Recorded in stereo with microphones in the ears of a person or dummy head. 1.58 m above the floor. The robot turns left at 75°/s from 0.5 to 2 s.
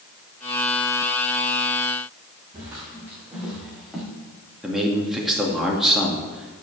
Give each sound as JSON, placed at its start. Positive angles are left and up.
{"t": 2.5, "sound": "footsteps", "side_deg": -15, "distance_m": 3.5}
{"t": 4.6, "sound": "a man speaking", "side_deg": -5, "distance_m": 2.5}